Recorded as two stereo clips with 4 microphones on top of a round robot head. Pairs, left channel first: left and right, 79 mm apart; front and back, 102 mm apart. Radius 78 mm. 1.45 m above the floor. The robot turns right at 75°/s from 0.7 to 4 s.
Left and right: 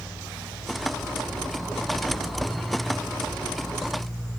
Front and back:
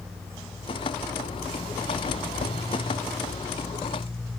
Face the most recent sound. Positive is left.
No sound to turn to.